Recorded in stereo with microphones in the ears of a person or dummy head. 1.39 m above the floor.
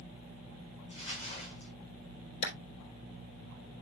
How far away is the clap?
About 4 m.